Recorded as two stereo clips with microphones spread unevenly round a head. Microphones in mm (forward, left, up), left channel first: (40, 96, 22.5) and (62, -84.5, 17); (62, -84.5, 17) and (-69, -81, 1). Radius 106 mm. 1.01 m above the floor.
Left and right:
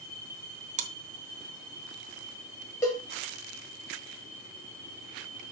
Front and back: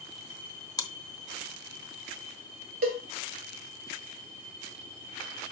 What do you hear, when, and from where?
0.8 s chewing: 45° right, 0.9 m
2.8 s a cowbell: 175° left, 1.9 m